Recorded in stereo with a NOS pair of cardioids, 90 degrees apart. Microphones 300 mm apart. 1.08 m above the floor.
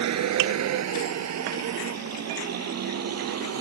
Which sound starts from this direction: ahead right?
A vehicle, at 0.0 s.